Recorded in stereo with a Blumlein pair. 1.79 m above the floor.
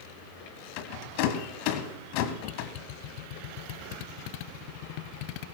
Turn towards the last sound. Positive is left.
turn(degrees=45)